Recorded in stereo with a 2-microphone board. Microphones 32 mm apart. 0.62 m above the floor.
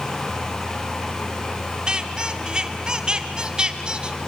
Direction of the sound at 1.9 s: 30° right (ahead or behind).